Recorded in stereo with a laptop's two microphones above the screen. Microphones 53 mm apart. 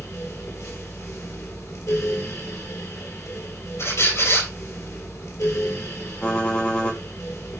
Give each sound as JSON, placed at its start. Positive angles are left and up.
{"t": 0.0, "sound": "a fan", "side_deg": 80, "distance_m": 1.8}
{"t": 3.8, "sound": "a squeak", "side_deg": 65, "distance_m": 4.0}
{"t": 6.2, "sound": "typing on a keyboard", "side_deg": 20, "distance_m": 1.6}